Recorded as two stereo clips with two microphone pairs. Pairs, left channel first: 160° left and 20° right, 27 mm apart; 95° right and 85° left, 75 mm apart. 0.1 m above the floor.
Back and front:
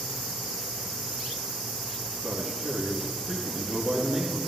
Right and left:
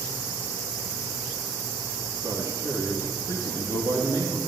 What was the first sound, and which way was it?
A man speaking, 55° left.